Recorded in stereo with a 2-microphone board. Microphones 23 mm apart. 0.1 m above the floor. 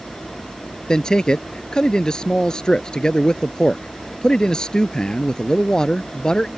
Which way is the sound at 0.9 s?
30° left (ahead or behind).